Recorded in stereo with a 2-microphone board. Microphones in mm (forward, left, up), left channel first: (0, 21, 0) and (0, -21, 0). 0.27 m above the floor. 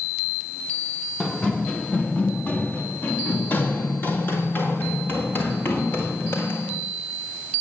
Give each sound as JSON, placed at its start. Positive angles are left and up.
{"t": 1.2, "sound": "running footsteps", "side_deg": 15, "distance_m": 1.5}